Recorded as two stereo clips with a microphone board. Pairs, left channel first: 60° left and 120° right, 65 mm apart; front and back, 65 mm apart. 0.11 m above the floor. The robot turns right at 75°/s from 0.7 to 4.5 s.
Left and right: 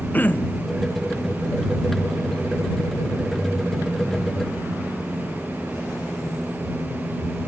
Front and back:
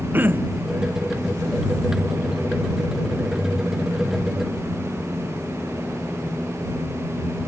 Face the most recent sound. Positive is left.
turn(degrees=45)